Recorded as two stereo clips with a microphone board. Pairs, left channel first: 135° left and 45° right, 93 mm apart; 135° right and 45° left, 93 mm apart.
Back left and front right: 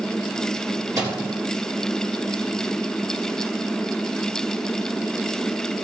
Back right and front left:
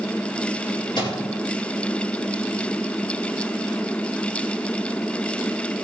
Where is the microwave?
100° right, 4.5 m.